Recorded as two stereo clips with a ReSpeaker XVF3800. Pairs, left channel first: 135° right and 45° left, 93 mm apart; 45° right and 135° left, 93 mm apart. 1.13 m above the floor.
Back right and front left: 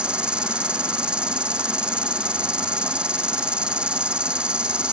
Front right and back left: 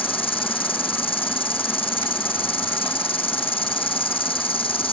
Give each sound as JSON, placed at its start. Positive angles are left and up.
{"t": 0.0, "sound": "an insect", "azimuth_deg": -35}